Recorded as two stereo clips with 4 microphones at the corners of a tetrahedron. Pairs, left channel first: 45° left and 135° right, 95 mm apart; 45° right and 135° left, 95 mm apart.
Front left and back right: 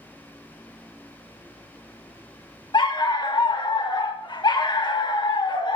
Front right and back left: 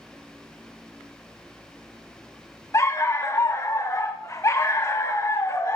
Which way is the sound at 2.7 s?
10° left.